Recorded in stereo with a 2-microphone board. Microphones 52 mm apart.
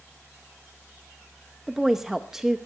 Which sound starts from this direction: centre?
A woman speaking, at 1.7 s.